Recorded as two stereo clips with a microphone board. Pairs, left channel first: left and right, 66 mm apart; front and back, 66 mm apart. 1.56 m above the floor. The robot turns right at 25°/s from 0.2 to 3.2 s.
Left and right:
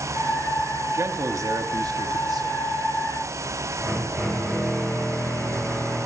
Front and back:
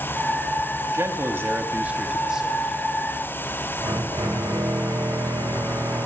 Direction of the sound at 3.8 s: 170° left.